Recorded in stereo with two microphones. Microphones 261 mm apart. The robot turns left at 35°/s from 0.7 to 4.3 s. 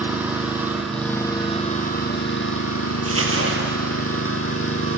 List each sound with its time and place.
0.0 s an engine running: 175° right, 1.5 m; by 5.0 s 60° left, 1.5 m
3.0 s crumpling: 60° right (ahead or behind), 1.8 m; by 3.8 s 45° right (ahead or behind), 1.8 m